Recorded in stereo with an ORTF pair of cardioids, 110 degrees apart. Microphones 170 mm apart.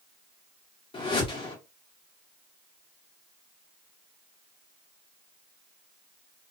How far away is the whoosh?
About 1.4 m.